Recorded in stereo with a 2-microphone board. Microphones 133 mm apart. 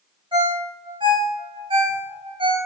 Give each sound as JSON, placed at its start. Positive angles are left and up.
{"t": 0.3, "sound": "a ringtone", "side_deg": -35, "distance_m": 0.9}